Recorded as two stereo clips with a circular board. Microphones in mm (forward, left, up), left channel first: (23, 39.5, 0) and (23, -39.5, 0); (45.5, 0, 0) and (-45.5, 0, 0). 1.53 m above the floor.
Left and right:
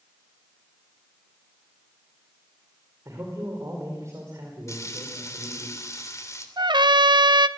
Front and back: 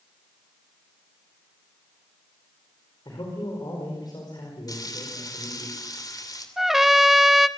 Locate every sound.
3.0 s a man speaking: 40° right, 5 m
4.7 s frying: 45° left, 3 m
6.6 s a trumpet: 95° right, 0.8 m